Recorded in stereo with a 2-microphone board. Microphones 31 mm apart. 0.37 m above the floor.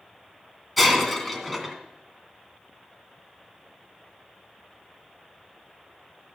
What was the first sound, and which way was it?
Breaking glass, 5° left (ahead or behind).